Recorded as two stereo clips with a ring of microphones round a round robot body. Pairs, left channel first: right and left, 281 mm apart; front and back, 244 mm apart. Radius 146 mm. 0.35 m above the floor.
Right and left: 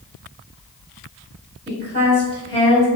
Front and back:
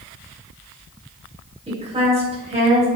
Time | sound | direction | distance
1.7 | a woman speaking | 135° left | 1.4 m